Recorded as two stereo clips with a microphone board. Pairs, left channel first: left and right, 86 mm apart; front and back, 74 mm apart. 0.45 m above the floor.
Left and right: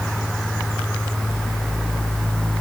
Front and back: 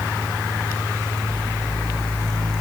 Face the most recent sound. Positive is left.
No sound to turn to.